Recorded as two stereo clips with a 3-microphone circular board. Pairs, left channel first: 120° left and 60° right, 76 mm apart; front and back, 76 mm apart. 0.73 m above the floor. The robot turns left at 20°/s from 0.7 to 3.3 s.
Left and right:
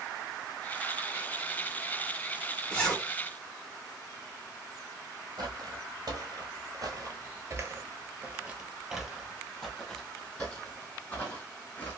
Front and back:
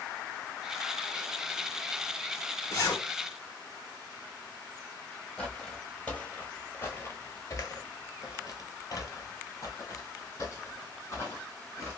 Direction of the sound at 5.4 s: 80° right.